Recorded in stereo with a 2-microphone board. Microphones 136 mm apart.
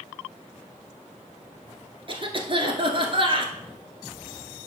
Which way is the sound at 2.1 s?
40° right (ahead or behind).